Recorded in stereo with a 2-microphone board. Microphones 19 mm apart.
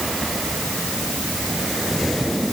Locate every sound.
Only background noise.